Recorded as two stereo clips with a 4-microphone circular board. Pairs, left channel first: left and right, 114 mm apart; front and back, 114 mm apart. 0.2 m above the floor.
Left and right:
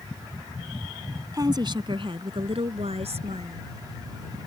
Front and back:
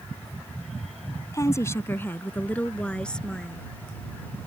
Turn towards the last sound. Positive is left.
turn(degrees=-85)